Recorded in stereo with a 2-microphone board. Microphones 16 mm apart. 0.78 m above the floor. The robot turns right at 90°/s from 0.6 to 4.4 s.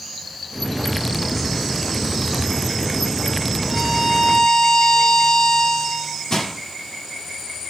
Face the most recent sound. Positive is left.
turn(degrees=40)  # may be behind; listen again after turning